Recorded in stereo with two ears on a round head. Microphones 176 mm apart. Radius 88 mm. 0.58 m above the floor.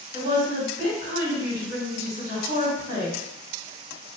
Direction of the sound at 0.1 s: 40° right (ahead or behind).